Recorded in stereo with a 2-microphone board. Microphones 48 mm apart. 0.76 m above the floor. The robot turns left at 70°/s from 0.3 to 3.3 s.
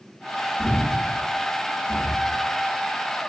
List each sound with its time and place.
0.6 s breathing: 65° right (ahead or behind), 1.2 m; by 2.4 s 25° left (ahead or behind), 1.2 m